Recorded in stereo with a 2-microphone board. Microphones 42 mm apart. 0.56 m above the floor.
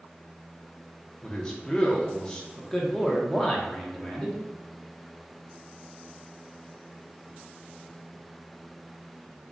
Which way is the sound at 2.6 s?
15° left (ahead or behind).